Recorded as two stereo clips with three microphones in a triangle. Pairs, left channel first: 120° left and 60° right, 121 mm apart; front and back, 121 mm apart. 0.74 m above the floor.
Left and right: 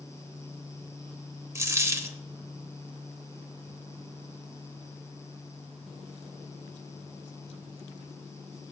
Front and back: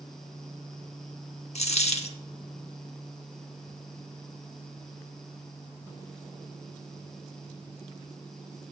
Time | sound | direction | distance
1.6 | a dropped coin | straight ahead | 0.6 m